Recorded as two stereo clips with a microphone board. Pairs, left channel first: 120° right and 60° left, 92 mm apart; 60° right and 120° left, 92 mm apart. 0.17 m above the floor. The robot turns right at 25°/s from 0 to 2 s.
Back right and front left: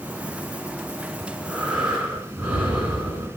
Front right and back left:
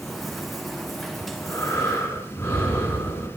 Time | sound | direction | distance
1.2 | breathing | 30° right | 2 m